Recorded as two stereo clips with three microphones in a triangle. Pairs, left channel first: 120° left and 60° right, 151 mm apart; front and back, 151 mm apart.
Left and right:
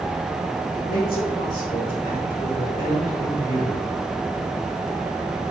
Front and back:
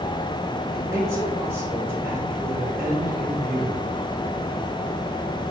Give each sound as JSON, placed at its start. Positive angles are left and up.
{"t": 0.7, "sound": "a man speaking", "azimuth_deg": 110, "distance_m": 3.5}